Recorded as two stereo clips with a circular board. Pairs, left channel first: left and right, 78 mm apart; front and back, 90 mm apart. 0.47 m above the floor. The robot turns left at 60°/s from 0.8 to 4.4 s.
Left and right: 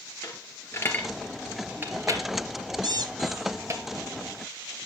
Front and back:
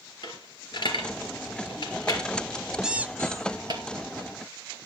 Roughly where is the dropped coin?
Ahead left.